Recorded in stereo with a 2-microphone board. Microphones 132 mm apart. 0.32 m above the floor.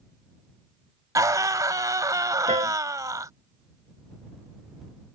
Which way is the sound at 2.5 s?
60° right (ahead or behind).